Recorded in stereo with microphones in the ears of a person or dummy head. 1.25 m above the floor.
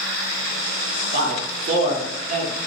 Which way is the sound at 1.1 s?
45° right (ahead or behind).